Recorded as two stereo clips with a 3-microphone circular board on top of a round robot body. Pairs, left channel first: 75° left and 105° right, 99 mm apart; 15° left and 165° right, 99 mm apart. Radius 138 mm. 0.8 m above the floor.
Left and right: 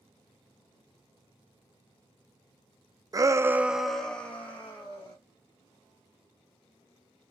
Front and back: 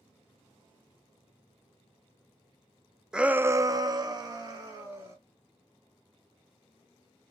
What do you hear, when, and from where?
3.1 s a shout: 85° right, 0.6 m; by 5.2 s 145° left, 1.3 m